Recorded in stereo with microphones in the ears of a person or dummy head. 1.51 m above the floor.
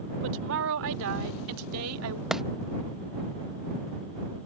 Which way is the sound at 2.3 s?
5° left (ahead or behind).